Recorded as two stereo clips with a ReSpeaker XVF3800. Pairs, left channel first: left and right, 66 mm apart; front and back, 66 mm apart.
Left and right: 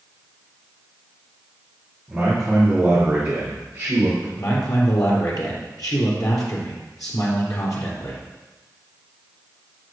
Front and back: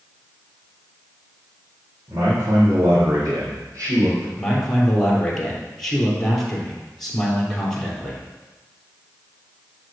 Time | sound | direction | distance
2.1 | a man speaking | 160° right | 4.5 m
4.3 | a man speaking | 80° left | 3.5 m